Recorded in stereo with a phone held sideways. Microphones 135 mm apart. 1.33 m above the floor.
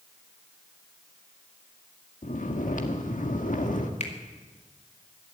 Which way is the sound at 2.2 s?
75° left (ahead or behind).